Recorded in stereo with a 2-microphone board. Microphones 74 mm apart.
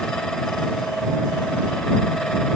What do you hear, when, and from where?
Only background noise.